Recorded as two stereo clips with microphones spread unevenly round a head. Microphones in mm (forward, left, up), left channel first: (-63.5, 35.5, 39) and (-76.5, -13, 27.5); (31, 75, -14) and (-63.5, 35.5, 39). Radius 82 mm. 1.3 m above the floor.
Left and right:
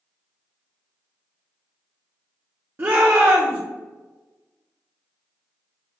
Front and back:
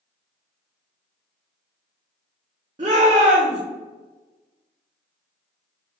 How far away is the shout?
About 0.8 m.